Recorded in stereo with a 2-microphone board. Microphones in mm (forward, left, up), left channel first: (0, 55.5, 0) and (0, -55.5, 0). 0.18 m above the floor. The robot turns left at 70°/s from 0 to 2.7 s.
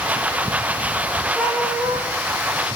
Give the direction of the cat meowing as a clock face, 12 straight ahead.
12 o'clock.